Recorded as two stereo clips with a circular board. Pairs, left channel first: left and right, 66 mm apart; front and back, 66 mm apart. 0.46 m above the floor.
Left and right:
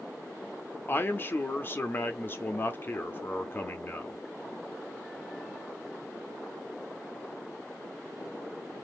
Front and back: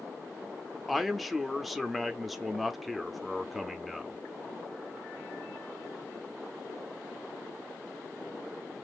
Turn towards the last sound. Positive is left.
turn(degrees=90)